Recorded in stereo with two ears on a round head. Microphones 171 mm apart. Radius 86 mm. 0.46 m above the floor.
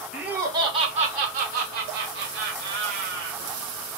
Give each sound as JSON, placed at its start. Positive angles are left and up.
{"t": 0.1, "sound": "laughter", "side_deg": -5, "distance_m": 0.7}